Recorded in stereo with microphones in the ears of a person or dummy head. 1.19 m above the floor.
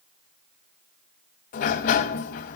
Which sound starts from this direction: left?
A sliding door, at 1.5 s.